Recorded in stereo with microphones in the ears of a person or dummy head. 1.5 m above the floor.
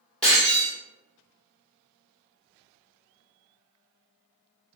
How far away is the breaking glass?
About 1.0 m.